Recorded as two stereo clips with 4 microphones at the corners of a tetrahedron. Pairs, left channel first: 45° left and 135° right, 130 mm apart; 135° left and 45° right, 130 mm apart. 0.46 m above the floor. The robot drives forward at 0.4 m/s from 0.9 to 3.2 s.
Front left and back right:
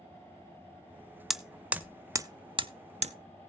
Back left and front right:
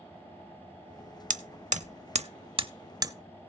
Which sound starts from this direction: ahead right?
Hammering, at 1.3 s.